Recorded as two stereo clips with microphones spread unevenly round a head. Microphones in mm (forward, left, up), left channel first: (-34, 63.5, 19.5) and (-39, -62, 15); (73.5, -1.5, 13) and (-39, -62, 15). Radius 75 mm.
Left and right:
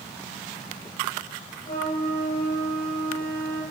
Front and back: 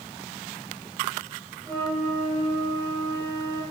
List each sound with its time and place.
1.6 s a flute: 105° left, 7.5 m